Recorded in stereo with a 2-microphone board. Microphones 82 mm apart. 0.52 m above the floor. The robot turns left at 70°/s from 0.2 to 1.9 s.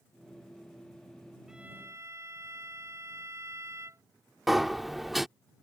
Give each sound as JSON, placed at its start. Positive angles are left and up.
{"t": 1.5, "sound": "a violin", "side_deg": -5}
{"t": 4.5, "sound": "a sliding door", "side_deg": 0}